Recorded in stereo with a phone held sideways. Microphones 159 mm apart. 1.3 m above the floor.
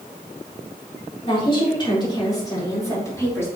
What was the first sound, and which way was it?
A woman speaking, 35° left (ahead or behind).